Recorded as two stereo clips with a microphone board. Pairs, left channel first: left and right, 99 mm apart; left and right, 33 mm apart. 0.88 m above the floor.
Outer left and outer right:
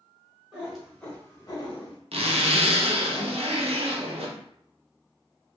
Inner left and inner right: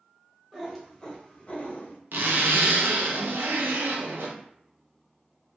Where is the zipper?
75° right (ahead or behind), 0.6 m.